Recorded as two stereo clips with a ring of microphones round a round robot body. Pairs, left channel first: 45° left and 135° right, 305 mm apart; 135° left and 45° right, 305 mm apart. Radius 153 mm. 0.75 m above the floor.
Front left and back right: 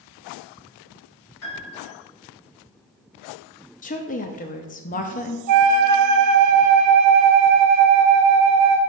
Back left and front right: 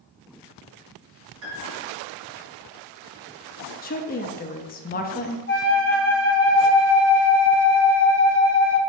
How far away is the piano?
About 2.5 m.